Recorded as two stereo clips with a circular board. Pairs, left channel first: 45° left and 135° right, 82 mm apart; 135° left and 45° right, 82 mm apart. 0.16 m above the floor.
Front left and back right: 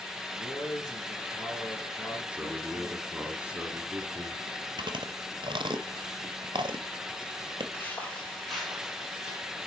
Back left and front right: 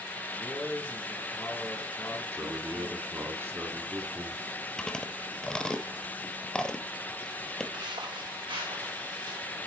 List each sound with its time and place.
0.3 s a man speaking: 60° left, 2.5 m
2.3 s a man speaking: 70° right, 1.2 m
4.8 s chewing: 140° right, 0.7 m
7.7 s footsteps: 20° right, 1.5 m; by 9.4 s 55° right, 3 m